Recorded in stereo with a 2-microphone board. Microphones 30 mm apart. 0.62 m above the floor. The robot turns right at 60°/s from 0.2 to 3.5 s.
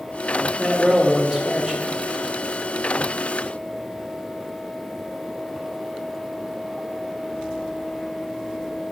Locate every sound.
0.6 s a man speaking: 25° right (ahead or behind), 1.2 m; by 2.0 s 5° right (ahead or behind), 1.2 m